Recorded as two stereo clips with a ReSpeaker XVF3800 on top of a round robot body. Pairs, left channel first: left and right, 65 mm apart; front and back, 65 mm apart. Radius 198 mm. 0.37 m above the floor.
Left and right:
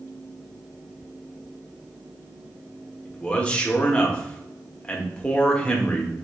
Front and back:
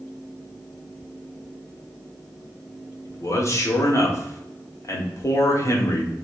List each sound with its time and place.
3.0 s a man speaking: 20° left, 1.7 m